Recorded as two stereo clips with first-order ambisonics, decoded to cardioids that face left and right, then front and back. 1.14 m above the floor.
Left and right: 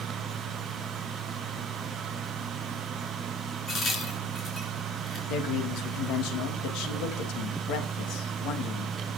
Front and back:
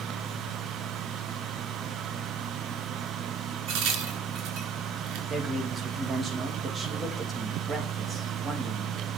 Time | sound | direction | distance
3.7 | a crack | 155° left | 3.5 m
5.3 | a man speaking | 105° left | 2.0 m